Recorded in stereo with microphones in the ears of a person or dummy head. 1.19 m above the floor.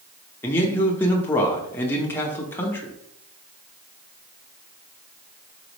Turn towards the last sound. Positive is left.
turn(degrees=10)  # may be behind; listen again after turning